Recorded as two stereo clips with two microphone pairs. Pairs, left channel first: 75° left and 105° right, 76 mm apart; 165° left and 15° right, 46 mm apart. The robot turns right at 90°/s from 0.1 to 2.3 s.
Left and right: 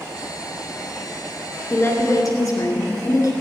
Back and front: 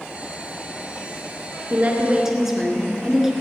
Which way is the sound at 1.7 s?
10° left.